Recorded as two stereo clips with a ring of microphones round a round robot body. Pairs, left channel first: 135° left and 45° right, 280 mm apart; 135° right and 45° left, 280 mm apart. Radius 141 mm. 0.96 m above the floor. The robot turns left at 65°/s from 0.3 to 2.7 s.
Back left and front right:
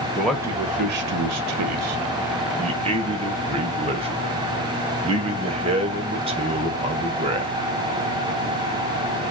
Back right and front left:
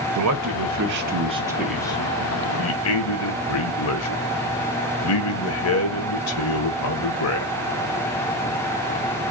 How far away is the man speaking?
About 0.6 m.